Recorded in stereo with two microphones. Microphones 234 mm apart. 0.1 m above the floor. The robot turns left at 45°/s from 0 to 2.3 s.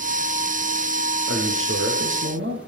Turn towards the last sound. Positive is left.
turn(degrees=-115)